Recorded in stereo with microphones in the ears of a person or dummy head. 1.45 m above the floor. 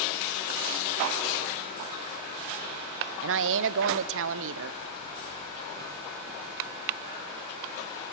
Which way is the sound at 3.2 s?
70° right (ahead or behind).